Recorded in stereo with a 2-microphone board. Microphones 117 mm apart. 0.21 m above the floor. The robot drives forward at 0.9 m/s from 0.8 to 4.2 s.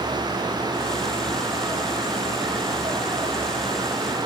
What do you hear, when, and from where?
Only background noise.